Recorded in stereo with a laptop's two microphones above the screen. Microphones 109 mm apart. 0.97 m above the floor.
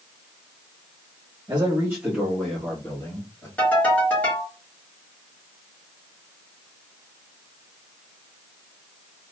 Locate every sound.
1.5 s a man speaking: 40° right (ahead or behind), 1.3 m; by 3.5 s 30° left (ahead or behind), 2 m
3.6 s a ringtone: 15° left (ahead or behind), 2.0 m